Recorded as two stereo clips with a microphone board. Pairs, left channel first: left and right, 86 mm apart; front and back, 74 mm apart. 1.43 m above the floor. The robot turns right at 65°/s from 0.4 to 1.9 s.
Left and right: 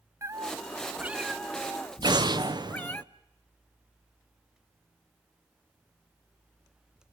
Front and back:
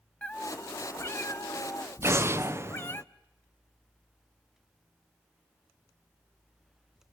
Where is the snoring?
No snoring in this recording.